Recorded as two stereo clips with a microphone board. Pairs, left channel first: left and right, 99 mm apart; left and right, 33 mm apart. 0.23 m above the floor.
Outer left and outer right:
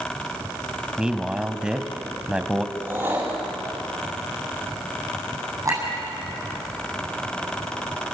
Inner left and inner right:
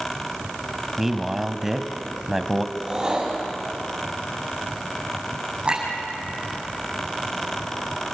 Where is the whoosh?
20° right (ahead or behind), 6 m.